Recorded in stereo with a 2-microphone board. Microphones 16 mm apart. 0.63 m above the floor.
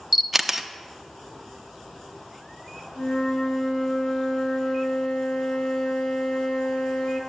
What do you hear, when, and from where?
0.1 s a camera shutter: 5° right (ahead or behind), 0.7 m
3.0 s a flute: 50° left (ahead or behind), 2 m